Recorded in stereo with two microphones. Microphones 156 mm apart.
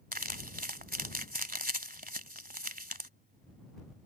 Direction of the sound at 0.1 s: 70° right (ahead or behind).